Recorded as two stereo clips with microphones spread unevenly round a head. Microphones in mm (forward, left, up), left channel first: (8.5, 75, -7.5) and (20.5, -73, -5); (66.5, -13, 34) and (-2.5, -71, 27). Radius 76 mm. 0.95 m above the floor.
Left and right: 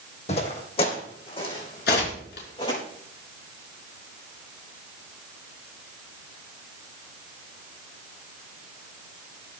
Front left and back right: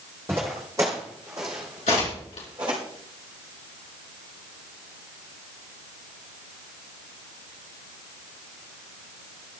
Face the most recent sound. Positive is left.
turn(degrees=75)